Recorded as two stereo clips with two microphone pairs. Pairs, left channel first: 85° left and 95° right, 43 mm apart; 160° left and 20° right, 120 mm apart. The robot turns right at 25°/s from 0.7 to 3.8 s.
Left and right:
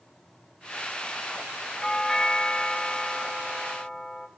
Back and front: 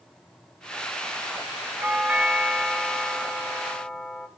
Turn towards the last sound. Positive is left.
turn(degrees=85)